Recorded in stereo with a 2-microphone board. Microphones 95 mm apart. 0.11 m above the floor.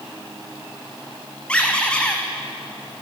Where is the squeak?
10° left (ahead or behind), 1.5 m.